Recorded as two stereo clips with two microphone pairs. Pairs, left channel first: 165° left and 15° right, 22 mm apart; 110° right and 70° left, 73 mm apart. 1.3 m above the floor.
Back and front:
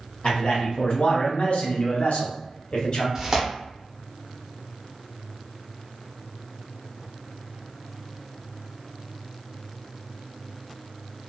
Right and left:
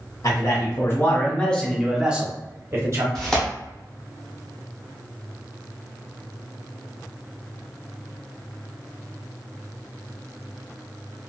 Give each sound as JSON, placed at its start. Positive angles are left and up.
{"t": 0.2, "sound": "a man speaking", "azimuth_deg": -155, "distance_m": 1.3}
{"t": 3.1, "sound": "tearing paper", "azimuth_deg": -30, "distance_m": 0.9}